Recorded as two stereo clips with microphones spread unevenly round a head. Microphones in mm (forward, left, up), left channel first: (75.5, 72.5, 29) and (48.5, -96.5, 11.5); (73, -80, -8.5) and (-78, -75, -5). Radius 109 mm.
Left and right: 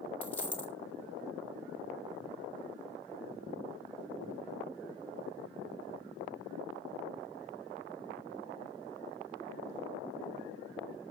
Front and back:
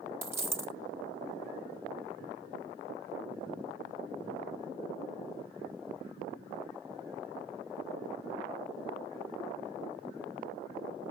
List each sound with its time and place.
0.2 s a dropped coin: 130° left, 0.9 m